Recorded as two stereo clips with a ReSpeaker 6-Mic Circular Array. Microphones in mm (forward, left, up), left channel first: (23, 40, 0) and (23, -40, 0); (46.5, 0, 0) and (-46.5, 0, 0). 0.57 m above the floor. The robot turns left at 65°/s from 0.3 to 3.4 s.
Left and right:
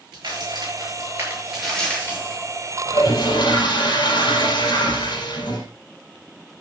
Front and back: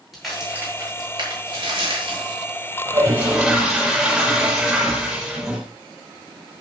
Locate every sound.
0.1 s a crack: 90° right, 9.5 m; by 2.4 s 130° left, 9.5 m
2.9 s a toilet flushing: 130° left, 5 m; by 5.7 s 95° left, 5 m